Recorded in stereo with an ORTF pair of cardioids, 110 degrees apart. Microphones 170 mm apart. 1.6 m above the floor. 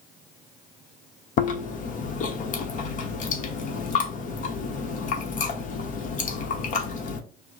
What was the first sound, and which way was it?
Chewing, 50° left.